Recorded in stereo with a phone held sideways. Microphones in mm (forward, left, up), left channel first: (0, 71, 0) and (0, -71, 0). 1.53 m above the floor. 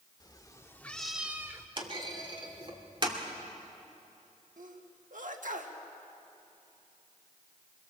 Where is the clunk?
40° right (ahead or behind), 2.5 m.